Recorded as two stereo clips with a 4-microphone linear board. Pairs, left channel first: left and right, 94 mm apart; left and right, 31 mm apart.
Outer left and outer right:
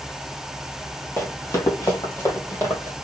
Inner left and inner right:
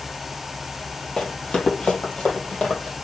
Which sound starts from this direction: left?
Running footsteps, at 1.2 s.